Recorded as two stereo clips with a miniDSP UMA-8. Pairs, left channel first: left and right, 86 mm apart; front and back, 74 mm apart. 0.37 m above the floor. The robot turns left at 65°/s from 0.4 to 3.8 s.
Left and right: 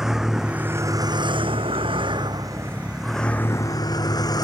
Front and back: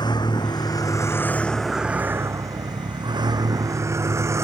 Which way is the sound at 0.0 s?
5° right.